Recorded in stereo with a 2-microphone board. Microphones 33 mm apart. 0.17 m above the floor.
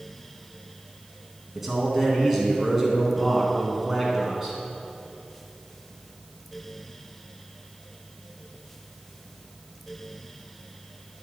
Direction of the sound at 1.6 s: 5° right (ahead or behind).